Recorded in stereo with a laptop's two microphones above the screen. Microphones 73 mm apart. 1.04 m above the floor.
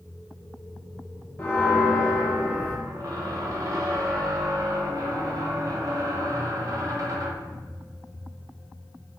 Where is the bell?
25° left (ahead or behind), 0.6 m.